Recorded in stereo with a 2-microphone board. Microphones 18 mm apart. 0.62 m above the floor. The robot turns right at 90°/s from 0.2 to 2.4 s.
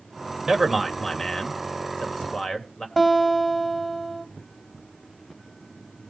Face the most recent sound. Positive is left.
turn(degrees=15)  # may be behind; listen again after turning